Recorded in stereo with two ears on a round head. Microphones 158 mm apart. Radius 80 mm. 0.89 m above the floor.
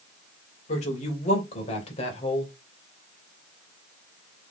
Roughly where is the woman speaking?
Left.